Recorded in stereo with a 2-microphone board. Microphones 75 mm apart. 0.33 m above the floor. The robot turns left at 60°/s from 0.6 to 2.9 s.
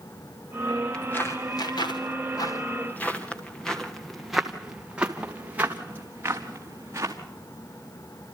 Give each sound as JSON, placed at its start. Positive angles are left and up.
{"t": 0.9, "sound": "footsteps", "side_deg": 10, "distance_m": 3.5}